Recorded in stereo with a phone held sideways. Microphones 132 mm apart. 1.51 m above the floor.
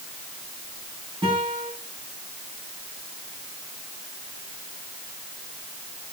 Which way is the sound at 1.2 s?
40° right (ahead or behind).